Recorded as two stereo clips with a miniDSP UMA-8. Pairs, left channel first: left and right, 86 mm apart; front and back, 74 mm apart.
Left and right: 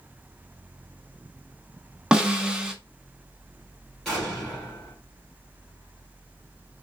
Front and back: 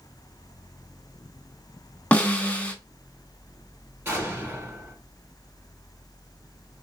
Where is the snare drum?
30° right, 0.5 m.